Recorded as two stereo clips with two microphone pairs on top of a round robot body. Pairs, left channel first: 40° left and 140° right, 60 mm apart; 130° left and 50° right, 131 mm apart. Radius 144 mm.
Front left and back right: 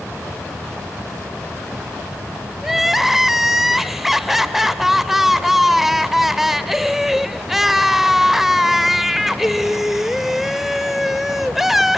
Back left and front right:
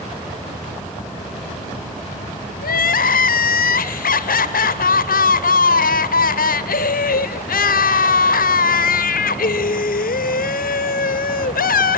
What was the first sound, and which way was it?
Crying, 135° left.